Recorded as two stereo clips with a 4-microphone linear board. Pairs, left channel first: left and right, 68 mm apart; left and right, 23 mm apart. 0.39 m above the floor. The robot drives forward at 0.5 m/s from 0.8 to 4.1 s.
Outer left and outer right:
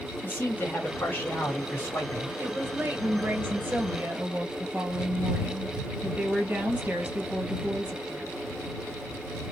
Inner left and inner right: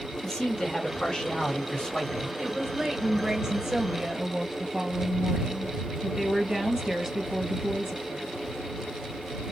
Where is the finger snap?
No finger snap in this recording.